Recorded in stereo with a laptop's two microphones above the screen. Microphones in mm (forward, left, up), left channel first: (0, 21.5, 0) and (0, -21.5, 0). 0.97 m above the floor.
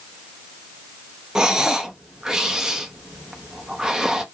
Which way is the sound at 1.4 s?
15° right (ahead or behind).